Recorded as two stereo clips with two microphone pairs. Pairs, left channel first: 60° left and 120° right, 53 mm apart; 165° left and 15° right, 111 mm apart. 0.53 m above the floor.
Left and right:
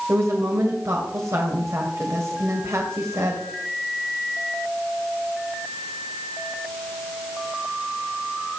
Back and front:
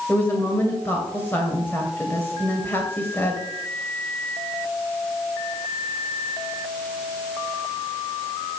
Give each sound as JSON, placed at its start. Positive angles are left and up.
{"t": 0.1, "sound": "a woman speaking", "azimuth_deg": -125, "distance_m": 2.0}